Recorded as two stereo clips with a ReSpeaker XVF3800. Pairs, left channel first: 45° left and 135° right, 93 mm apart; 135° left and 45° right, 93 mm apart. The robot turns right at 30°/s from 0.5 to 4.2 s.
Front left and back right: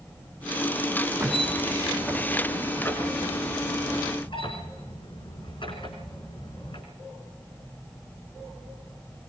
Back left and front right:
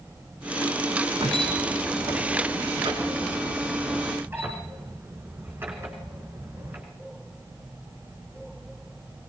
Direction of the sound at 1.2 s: 65° right.